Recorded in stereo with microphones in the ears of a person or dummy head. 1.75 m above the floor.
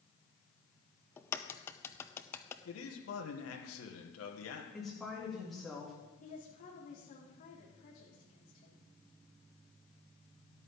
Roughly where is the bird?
I don't hear a bird.